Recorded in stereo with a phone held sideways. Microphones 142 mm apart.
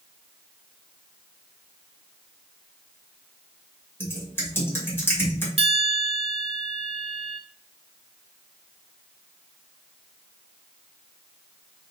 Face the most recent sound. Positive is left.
turn(degrees=-45)  # may be behind; listen again after turning